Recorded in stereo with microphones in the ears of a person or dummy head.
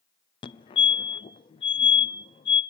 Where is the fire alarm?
25° left (ahead or behind), 0.7 m.